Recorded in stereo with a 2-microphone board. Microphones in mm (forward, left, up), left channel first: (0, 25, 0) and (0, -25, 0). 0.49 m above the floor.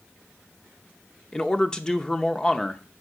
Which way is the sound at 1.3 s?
15° left (ahead or behind).